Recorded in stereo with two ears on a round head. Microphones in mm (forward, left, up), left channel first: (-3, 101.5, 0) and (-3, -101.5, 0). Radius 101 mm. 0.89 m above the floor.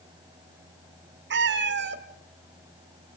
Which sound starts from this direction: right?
A cat meowing, at 1.3 s.